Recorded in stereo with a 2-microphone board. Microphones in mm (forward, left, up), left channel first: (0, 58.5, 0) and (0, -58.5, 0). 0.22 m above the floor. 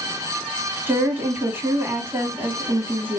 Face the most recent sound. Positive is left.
turn(degrees=-20)  # may be behind; listen again after turning